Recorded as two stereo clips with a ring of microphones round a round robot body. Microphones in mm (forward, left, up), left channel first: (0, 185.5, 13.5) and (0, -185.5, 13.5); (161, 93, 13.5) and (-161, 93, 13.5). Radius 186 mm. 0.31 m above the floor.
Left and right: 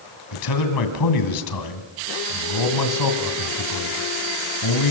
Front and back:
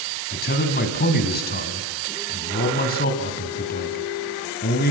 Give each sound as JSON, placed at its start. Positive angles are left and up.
{"t": 0.3, "sound": "a man speaking", "azimuth_deg": 60, "distance_m": 2.5}